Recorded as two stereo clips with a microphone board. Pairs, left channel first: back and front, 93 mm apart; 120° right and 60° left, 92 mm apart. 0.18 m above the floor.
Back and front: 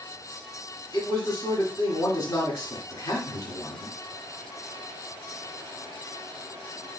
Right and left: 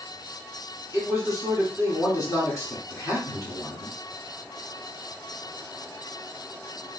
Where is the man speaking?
155° right, 1.8 m.